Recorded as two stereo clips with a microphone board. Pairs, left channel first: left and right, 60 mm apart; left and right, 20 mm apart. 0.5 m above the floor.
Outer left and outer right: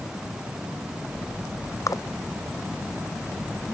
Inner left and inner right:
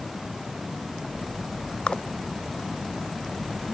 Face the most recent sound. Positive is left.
turn(degrees=60)  # may be behind; listen again after turning